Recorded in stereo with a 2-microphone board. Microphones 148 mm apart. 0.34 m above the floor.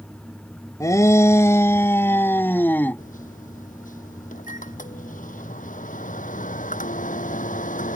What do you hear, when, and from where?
0.8 s a shout: 25° left (ahead or behind); by 3.0 s 15° left (ahead or behind)
3.0 s a microwave: 75° left (ahead or behind)